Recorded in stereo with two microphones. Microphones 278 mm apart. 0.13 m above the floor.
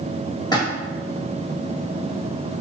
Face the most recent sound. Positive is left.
turn(degrees=15)  # may be behind; listen again after turning